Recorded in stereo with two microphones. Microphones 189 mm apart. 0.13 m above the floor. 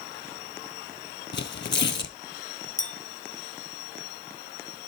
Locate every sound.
1.3 s tearing paper: 65° left (ahead or behind), 0.6 m
2.8 s a clink: 40° left (ahead or behind), 1.7 m